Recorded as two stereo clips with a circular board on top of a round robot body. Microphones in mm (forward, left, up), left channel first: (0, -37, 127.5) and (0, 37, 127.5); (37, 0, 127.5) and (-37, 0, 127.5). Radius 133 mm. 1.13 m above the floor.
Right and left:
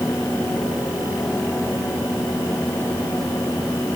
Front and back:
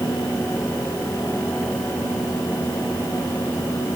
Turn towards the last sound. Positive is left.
No sound to turn to.